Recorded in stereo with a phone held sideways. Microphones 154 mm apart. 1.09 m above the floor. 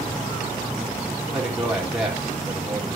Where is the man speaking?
5° right (ahead or behind), 2.5 m.